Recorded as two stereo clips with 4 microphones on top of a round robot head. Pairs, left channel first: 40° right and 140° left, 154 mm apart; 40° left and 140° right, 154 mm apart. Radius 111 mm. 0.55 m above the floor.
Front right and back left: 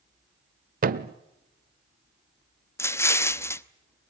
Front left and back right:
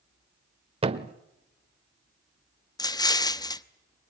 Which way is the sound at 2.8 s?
10° left.